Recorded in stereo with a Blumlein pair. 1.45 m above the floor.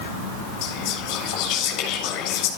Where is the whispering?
40° left, 7 m.